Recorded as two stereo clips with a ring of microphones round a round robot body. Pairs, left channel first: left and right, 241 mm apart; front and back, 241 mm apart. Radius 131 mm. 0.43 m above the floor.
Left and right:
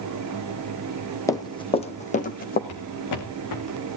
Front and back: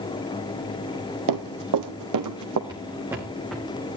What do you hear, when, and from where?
1.3 s running footsteps: 170° left, 1.4 m; by 2.6 s 145° left, 1.9 m
2.7 s footsteps: 105° left, 2.5 m; by 3.7 s 85° left, 1.8 m